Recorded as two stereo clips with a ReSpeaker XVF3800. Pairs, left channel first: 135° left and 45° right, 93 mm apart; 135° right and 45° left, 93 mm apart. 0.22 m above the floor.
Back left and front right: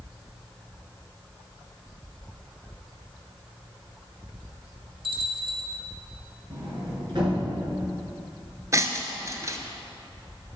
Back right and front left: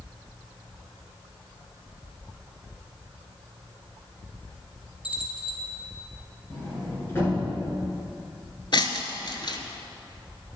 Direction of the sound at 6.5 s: 75° right.